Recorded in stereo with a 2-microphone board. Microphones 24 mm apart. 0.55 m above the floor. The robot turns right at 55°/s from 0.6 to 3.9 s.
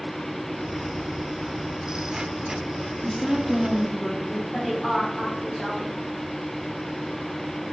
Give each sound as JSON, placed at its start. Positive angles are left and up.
{"t": 3.0, "sound": "a woman speaking", "side_deg": 20, "distance_m": 1.2}
{"t": 4.5, "sound": "a woman speaking", "side_deg": 5, "distance_m": 3.5}